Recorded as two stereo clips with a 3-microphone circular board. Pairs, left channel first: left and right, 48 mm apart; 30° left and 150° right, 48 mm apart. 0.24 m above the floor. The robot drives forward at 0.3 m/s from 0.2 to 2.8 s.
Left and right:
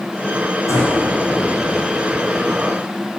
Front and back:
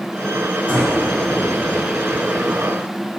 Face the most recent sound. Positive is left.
turn(degrees=100)